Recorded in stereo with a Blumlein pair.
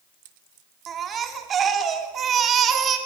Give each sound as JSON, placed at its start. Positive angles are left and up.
{"t": 0.9, "sound": "a baby crying", "azimuth_deg": -25, "distance_m": 2.5}